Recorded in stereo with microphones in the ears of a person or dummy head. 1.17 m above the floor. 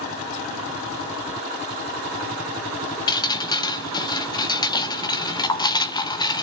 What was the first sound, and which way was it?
Dripping, 25° left (ahead or behind).